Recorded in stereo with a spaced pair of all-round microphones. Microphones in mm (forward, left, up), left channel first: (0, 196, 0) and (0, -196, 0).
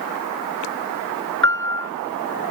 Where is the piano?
30° right (ahead or behind).